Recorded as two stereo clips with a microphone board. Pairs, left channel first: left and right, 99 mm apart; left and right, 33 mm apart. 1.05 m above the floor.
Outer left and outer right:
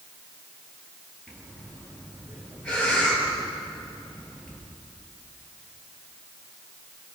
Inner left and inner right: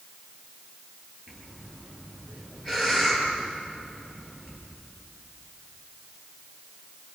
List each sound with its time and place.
1.3 s breathing: 10° left (ahead or behind), 7.5 m